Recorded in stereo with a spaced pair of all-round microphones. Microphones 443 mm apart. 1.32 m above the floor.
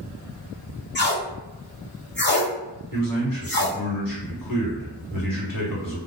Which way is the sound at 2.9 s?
50° left (ahead or behind).